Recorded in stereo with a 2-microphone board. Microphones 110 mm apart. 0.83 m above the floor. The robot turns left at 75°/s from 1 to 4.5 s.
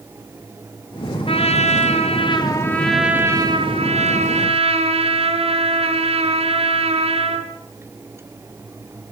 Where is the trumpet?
125° left, 4 m; by 7.5 s 120° right, 4 m.